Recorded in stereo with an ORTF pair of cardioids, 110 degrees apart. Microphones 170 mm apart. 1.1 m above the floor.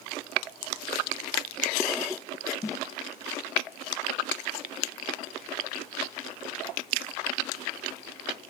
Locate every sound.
2.6 s a snare drum: 20° left, 0.7 m